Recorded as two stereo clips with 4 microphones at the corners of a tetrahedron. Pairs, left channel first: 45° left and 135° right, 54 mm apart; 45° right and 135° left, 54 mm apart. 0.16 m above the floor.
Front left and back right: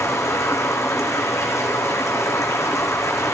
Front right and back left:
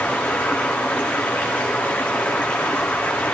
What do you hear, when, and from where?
0.0 s running water: 20° left, 3 m